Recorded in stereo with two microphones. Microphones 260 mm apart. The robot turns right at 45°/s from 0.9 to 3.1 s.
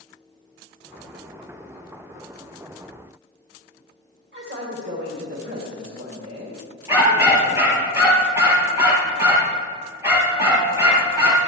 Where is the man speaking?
50° right (ahead or behind), 3 m.